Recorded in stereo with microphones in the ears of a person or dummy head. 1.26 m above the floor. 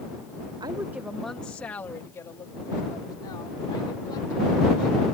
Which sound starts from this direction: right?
A woman speaking, at 0.6 s.